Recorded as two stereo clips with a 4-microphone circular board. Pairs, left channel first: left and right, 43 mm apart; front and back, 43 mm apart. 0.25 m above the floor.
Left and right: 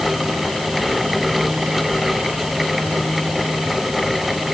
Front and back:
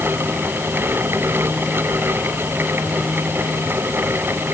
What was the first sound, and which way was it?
Only background noise.